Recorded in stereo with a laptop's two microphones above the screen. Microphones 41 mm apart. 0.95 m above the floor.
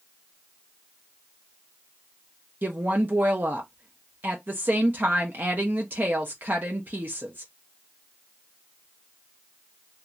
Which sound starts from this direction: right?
A woman speaking, at 2.6 s.